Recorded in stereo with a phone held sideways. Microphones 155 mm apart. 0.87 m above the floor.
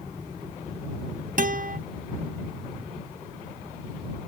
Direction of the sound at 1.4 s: 60° right (ahead or behind).